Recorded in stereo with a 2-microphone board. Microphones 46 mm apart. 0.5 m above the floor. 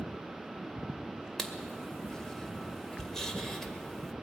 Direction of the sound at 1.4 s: 10° left (ahead or behind).